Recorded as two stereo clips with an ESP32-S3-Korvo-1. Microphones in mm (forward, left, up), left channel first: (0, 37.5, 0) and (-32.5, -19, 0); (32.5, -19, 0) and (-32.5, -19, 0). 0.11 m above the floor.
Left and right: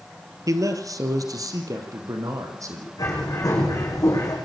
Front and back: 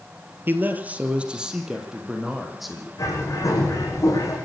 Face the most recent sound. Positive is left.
turn(degrees=35)